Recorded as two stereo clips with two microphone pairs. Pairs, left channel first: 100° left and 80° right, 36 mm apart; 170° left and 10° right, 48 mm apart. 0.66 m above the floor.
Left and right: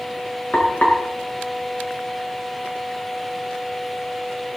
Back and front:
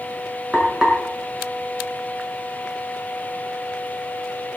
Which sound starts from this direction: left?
Frying, at 0.5 s.